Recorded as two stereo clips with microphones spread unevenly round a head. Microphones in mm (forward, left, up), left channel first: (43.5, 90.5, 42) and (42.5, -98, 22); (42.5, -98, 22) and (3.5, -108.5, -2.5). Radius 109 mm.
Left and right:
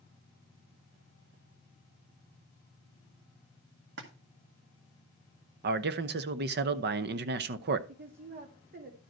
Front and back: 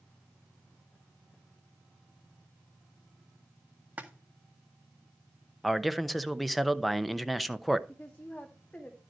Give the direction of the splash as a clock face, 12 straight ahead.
4 o'clock.